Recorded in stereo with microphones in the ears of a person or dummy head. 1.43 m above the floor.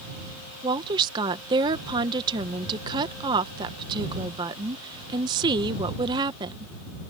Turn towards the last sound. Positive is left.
turn(degrees=-15)  # may be behind; listen again after turning